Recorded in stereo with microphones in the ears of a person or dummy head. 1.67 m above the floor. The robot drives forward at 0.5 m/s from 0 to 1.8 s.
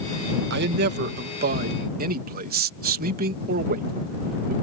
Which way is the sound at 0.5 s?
60° right (ahead or behind).